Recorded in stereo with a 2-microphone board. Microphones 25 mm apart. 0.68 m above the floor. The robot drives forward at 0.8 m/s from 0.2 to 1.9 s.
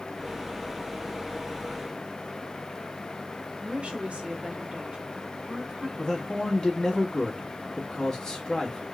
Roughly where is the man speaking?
Left.